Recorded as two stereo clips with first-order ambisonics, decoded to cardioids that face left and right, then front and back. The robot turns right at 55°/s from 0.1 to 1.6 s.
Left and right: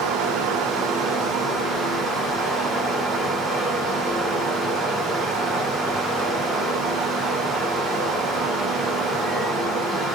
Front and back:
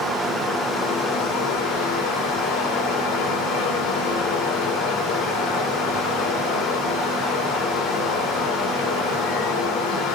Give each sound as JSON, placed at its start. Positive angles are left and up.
{"t": 0.0, "sound": "running water", "azimuth_deg": -95, "distance_m": 3.0}